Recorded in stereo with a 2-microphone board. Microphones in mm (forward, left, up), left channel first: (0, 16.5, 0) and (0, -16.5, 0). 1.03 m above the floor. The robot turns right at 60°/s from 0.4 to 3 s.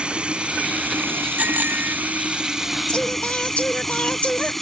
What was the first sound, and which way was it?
Running water, 150° right.